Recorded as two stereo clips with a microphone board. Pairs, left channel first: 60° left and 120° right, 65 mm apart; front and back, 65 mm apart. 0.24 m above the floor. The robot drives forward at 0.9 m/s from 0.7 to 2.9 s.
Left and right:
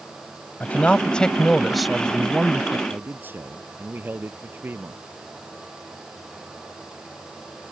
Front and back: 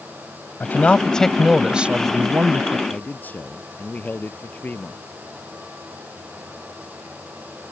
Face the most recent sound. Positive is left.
turn(degrees=-60)